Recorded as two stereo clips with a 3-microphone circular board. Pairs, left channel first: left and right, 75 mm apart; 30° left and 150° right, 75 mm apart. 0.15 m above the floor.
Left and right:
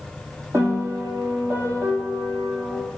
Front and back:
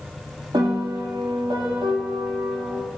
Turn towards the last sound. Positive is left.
turn(degrees=-145)